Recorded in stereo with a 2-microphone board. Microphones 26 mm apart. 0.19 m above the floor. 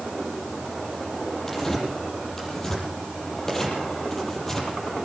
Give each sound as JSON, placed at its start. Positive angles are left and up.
{"t": 1.5, "sound": "tearing paper", "side_deg": 20, "distance_m": 6.0}